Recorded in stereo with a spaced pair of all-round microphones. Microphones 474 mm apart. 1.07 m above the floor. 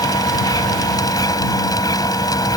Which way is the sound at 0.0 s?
10° left (ahead or behind).